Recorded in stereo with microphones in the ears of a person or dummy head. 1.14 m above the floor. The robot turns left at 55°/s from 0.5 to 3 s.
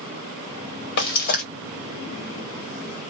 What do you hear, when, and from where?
1.0 s frying: 60° left (ahead or behind), 1.2 m; by 1.4 s 35° left (ahead or behind), 1.2 m